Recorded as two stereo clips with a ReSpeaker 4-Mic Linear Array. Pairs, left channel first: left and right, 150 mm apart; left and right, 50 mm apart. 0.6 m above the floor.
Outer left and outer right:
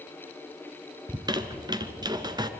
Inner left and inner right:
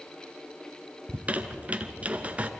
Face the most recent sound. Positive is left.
turn(degrees=-30)  # may be behind; listen again after turning